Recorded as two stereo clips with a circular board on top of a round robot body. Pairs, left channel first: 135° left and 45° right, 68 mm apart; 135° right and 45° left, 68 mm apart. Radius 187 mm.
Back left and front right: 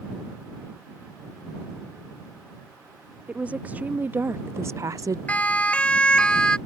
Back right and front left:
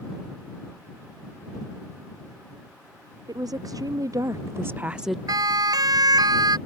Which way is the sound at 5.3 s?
65° left.